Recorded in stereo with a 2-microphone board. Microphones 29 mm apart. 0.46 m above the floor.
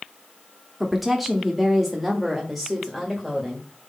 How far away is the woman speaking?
About 1.0 m.